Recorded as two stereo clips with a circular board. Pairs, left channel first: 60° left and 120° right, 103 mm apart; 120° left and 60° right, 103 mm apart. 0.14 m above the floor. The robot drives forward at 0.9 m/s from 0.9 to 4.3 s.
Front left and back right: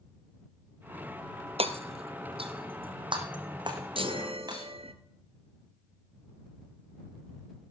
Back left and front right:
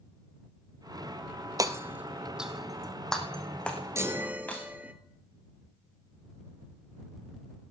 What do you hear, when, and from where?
1.6 s hammering: 110° right, 0.9 m; by 4.7 s 165° right, 3 m
4.0 s a chime: 115° right, 0.9 m; by 4.9 s 135° right, 1.1 m